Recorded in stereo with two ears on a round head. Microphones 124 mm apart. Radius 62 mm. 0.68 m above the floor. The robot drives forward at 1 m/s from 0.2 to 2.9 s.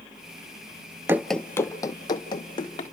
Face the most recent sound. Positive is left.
turn(degrees=35)  # may be behind; listen again after turning